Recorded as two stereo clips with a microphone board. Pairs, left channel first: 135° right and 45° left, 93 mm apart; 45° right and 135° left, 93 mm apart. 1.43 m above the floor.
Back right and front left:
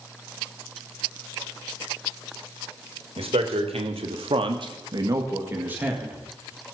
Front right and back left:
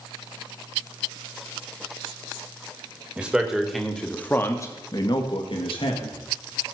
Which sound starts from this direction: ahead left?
A man speaking, at 3.2 s.